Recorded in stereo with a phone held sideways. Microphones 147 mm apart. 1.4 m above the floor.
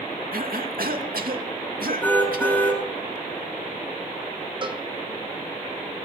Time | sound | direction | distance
0.3 | a cough | 80° right | 2.5 m
2.0 | a car horn | 10° left (ahead or behind) | 7.5 m
4.6 | a cowbell | 35° right (ahead or behind) | 1.5 m